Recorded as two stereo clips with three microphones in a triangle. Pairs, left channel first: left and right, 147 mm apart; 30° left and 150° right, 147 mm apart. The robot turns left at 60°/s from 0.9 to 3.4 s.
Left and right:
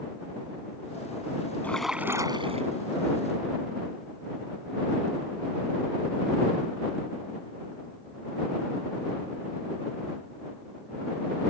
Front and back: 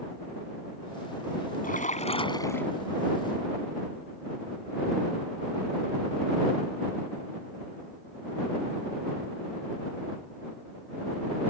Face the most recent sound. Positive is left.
turn(degrees=-95)